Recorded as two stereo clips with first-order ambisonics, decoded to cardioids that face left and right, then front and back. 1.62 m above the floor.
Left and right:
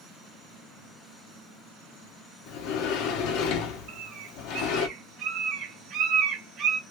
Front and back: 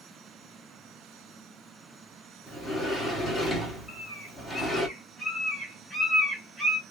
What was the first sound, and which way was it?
A sliding door, 95° left.